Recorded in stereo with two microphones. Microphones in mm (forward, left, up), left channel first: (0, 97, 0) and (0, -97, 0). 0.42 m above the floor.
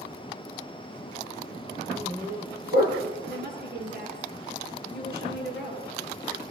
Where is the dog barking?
40° right (ahead or behind), 4 m; by 3.1 s 55° right (ahead or behind), 5.5 m.